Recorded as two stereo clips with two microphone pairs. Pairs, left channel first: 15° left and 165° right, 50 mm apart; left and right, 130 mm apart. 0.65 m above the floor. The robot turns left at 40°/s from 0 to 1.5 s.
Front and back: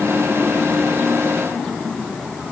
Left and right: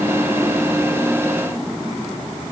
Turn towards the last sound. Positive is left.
No sound to turn to.